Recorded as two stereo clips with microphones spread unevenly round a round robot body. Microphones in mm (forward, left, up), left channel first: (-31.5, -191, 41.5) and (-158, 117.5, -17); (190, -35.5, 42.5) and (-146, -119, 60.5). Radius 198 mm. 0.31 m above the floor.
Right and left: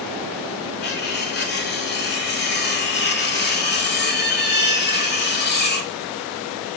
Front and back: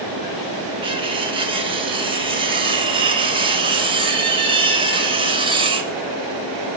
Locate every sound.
0.8 s cutlery clinking: 105° right, 0.7 m